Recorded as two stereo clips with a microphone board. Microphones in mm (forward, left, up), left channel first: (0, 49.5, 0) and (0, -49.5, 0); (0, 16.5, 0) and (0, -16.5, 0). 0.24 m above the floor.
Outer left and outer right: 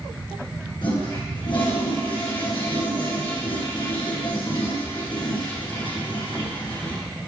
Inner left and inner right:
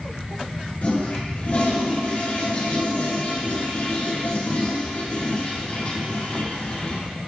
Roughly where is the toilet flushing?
Left.